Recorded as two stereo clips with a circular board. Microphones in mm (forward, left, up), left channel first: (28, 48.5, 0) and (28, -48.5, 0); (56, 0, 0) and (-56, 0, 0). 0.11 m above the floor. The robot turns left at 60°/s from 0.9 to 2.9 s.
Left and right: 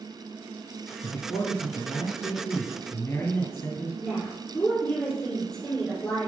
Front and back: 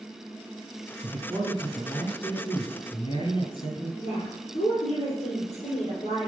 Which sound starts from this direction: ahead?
A woman speaking, at 4.0 s.